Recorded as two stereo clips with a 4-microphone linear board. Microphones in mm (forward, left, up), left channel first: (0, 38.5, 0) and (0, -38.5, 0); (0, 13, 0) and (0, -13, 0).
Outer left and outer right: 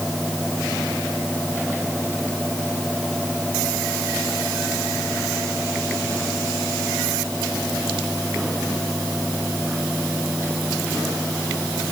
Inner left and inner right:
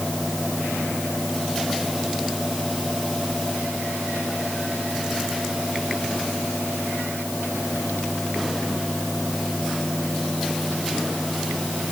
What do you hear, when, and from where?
Only background noise.